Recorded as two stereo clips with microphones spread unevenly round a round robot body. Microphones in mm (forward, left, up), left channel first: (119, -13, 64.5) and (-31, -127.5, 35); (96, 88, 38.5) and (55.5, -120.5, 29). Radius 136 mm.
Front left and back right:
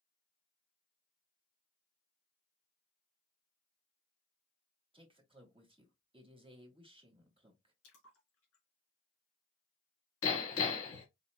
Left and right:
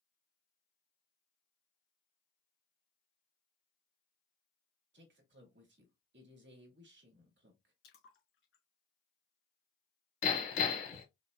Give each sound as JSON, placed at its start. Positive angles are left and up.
{"t": 4.9, "sound": "a man speaking", "azimuth_deg": -90, "distance_m": 1.4}
{"t": 7.8, "sound": "a splash", "azimuth_deg": 55, "distance_m": 2.0}
{"t": 10.2, "sound": "hammering", "azimuth_deg": 50, "distance_m": 1.5}